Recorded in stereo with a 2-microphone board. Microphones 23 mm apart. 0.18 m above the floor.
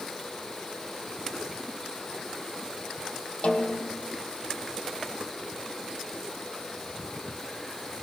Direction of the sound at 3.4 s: 60° left (ahead or behind).